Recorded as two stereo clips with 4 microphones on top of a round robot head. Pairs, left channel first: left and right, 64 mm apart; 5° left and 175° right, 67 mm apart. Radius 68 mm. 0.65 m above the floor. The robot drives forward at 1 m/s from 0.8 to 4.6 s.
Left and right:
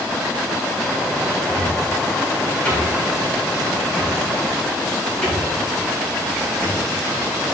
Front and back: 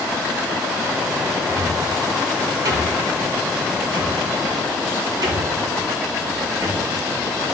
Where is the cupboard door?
145° left, 1.8 m; by 6.8 s 170° left, 4.5 m.